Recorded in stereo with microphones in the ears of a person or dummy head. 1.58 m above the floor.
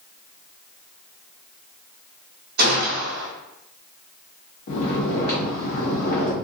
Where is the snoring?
55° left (ahead or behind), 1.1 m.